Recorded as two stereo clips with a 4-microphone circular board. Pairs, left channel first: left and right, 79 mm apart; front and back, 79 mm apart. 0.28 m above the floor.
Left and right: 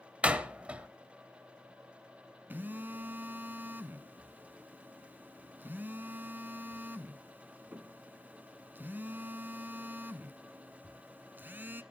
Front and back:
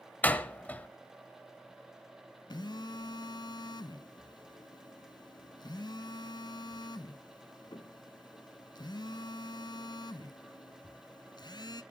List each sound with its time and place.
0.2 s a door slam: 35° right, 0.9 m
2.5 s a phone buzzing: 25° right, 0.8 m